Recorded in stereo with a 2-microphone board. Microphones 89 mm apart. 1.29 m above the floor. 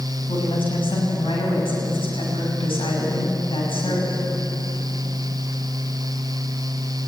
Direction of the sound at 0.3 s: 80° left.